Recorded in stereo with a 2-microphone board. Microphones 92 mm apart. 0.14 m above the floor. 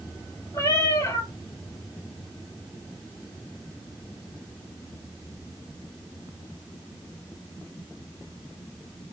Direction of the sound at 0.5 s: 35° left (ahead or behind).